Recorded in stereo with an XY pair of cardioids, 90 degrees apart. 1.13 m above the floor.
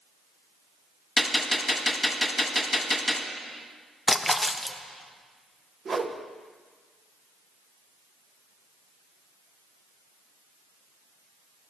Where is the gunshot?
10° left, 1.4 m.